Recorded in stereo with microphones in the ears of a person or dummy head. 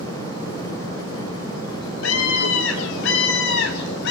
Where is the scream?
80° left, 4 m; by 4.1 s 65° left (ahead or behind), 4.5 m.